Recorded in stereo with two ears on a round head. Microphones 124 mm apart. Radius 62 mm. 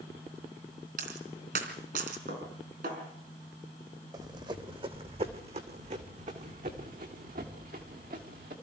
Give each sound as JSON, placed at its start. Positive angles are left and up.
{"t": 1.0, "sound": "a dropped coin", "side_deg": -70, "distance_m": 3.5}
{"t": 2.3, "sound": "dishes clattering", "side_deg": -75, "distance_m": 5.0}
{"t": 4.1, "sound": "running footsteps", "side_deg": -30, "distance_m": 1.8}